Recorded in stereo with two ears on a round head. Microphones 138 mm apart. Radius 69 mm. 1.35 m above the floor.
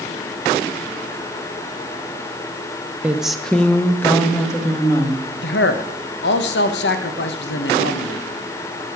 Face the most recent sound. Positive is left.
turn(degrees=85)